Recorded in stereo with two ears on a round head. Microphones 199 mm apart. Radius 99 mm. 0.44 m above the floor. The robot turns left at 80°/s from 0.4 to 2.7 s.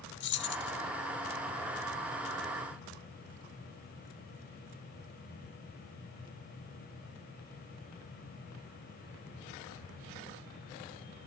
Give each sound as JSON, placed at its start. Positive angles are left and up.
{"t": 0.2, "sound": "keys jangling", "side_deg": 50, "distance_m": 0.8}